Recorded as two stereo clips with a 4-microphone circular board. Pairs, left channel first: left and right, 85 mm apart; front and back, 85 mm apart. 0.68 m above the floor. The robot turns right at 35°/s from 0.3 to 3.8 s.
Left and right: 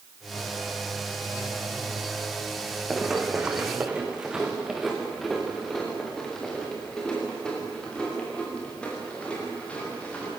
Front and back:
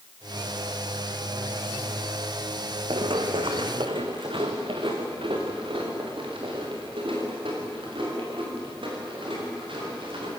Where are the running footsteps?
175° right, 2.5 m; by 10.3 s 165° left, 12 m.